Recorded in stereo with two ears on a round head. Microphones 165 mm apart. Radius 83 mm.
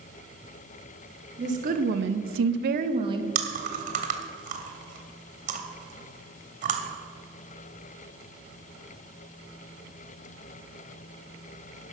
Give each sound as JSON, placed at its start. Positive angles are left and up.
{"t": 1.4, "sound": "a woman speaking", "side_deg": -40, "distance_m": 1.3}
{"t": 3.4, "sound": "chewing", "side_deg": -45, "distance_m": 1.4}